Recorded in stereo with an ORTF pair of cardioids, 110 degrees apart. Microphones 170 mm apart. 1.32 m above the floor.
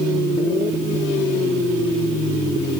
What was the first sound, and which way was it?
Only background noise.